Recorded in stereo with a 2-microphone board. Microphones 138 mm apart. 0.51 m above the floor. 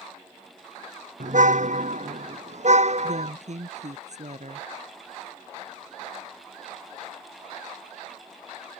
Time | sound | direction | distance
1.2 | a car horn | 65° right (ahead or behind) | ?
3.0 | a woman speaking | 55° right (ahead or behind) | ?